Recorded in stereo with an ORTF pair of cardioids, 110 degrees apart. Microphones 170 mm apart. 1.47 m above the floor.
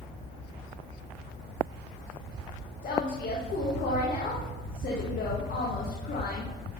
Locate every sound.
2.8 s a woman speaking: 55° left, 2 m